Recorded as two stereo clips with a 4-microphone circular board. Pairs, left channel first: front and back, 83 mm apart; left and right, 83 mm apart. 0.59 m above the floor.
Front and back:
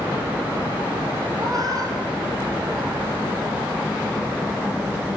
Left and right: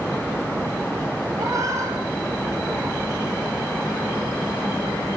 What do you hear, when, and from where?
1.4 s a cat meowing: 135° right, 4.5 m; by 3.0 s 145° right, 5.5 m